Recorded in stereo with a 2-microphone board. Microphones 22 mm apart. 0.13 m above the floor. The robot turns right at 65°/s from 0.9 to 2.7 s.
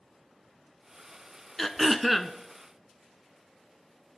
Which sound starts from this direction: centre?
Throat clearing, at 1.6 s.